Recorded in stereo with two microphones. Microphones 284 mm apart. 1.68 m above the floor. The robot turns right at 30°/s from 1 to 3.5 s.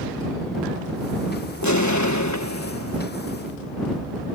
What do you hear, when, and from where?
1.6 s an explosion: 80° left; by 3.0 s 125° left